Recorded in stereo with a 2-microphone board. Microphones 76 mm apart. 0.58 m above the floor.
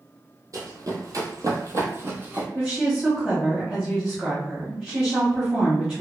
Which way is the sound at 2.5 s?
5° right (ahead or behind).